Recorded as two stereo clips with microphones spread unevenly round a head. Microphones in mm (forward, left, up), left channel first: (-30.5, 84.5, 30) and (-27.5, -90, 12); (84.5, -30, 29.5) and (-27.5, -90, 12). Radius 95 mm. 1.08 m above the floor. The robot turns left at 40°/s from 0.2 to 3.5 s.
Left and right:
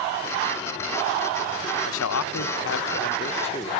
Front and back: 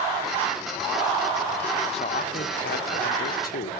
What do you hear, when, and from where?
1.9 s a man speaking: 90° left, 0.5 m; by 3.7 s 25° left, 0.5 m